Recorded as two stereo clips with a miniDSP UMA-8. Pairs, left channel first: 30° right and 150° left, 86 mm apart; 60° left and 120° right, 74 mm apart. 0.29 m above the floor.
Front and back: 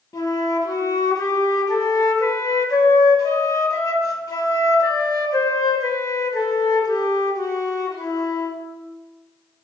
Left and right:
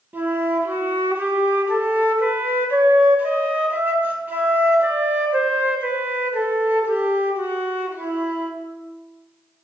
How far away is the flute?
About 1.1 m.